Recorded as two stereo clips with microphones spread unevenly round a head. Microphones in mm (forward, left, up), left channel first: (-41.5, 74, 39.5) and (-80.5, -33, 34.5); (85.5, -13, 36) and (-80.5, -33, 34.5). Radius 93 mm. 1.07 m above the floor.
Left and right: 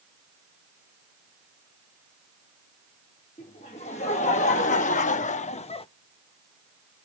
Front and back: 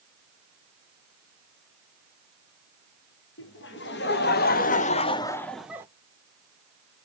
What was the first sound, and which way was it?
Laughter, 25° left.